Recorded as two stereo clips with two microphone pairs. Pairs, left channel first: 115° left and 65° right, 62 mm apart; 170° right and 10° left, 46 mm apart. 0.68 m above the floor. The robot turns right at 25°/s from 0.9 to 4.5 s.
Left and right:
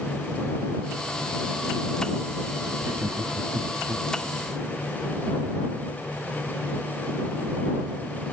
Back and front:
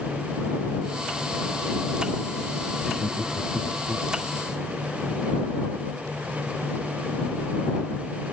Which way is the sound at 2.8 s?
70° right.